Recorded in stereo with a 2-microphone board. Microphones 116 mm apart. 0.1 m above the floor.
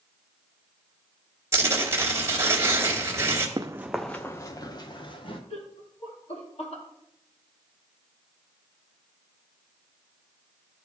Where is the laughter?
65° left (ahead or behind), 3 m.